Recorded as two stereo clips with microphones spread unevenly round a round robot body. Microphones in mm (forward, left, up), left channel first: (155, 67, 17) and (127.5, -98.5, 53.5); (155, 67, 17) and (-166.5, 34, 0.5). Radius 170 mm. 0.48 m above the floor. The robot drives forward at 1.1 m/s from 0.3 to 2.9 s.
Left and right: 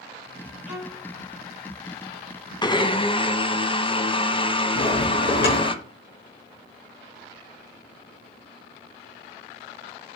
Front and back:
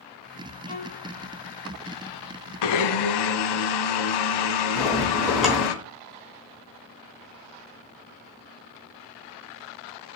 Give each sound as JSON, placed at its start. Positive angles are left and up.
{"t": 0.7, "sound": "a violin", "azimuth_deg": 30, "distance_m": 6.0}
{"t": 2.6, "sound": "a blender", "azimuth_deg": 10, "distance_m": 1.3}
{"t": 4.8, "sound": "a bell", "azimuth_deg": 95, "distance_m": 3.0}